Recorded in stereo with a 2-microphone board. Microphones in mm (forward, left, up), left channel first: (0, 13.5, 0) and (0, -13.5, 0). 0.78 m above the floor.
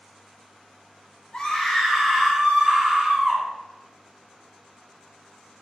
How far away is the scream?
About 0.9 m.